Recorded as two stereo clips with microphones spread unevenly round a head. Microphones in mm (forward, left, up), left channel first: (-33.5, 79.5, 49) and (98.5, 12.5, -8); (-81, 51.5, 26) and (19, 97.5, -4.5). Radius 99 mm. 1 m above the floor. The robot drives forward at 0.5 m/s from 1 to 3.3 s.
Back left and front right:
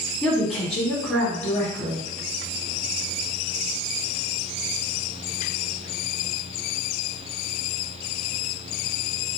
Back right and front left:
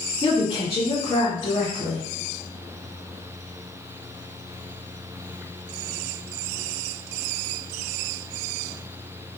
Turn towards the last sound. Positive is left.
turn(degrees=-150)